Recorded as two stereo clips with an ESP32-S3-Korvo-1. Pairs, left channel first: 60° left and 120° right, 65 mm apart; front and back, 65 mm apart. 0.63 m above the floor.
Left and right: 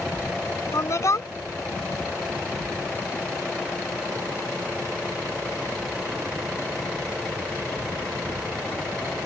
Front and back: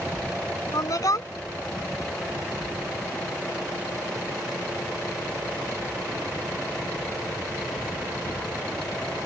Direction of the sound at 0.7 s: 25° left.